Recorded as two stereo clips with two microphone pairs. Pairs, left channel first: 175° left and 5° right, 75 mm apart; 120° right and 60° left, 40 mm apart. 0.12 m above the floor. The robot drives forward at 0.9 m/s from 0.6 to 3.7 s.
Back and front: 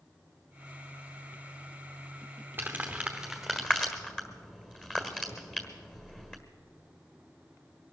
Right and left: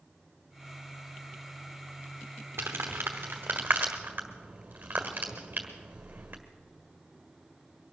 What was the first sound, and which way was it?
Crumpling, 65° left.